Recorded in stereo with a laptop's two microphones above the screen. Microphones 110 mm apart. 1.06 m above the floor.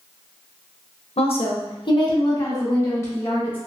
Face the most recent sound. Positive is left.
turn(degrees=20)  # may be behind; listen again after turning